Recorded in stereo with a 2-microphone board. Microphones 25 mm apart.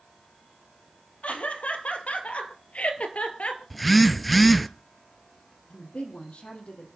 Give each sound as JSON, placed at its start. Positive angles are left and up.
{"t": 1.2, "sound": "laughter", "side_deg": 65, "distance_m": 3.5}
{"t": 3.7, "sound": "a phone buzzing", "side_deg": 5, "distance_m": 0.6}
{"t": 5.7, "sound": "a woman speaking", "side_deg": 55, "distance_m": 4.0}